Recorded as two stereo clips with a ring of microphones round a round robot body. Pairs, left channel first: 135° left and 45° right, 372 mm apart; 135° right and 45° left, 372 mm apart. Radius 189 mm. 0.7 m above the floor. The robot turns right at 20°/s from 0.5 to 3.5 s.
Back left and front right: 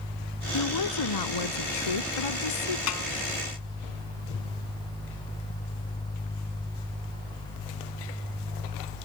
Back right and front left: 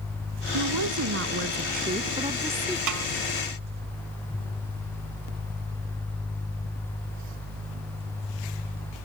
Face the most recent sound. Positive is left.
turn(degrees=100)